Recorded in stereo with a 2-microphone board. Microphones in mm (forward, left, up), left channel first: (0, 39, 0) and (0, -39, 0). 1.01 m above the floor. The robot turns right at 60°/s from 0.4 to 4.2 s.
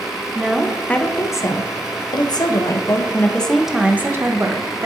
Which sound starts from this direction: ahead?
A woman speaking, at 0.3 s.